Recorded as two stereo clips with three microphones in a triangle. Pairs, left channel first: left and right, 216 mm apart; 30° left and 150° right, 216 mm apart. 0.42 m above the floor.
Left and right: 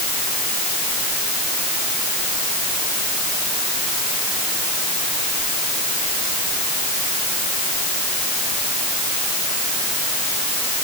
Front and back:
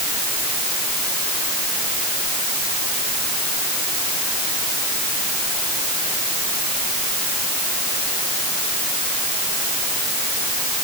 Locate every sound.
Only background noise.